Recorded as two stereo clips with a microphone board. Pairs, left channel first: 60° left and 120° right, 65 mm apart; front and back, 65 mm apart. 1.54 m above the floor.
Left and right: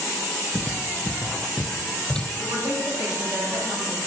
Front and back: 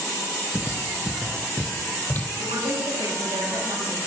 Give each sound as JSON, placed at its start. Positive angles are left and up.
{"t": 0.5, "sound": "footsteps", "azimuth_deg": -130, "distance_m": 1.8}
{"t": 2.4, "sound": "a woman speaking", "azimuth_deg": -175, "distance_m": 9.5}